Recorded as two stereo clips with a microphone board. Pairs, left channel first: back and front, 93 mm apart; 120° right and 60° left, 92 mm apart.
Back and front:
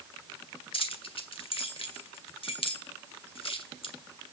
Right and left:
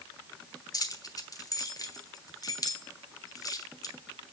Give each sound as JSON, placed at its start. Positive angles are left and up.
{"t": 0.7, "sound": "keys jangling", "azimuth_deg": -170, "distance_m": 1.6}